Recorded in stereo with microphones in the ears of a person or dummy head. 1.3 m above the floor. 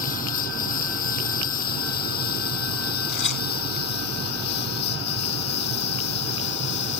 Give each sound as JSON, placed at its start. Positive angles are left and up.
{"t": 0.0, "sound": "a lawn mower", "side_deg": 45}
{"t": 3.1, "sound": "tearing paper", "side_deg": 65}